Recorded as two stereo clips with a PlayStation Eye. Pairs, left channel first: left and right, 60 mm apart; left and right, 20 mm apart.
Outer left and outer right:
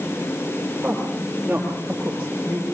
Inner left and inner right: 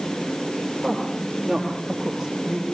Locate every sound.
0.8 s a woman speaking: 25° right (ahead or behind), 7 m; by 2.6 s 10° right (ahead or behind), 8 m